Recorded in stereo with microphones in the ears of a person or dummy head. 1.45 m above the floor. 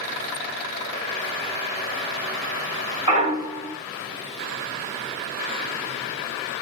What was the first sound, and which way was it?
A clunk, 35° right (ahead or behind).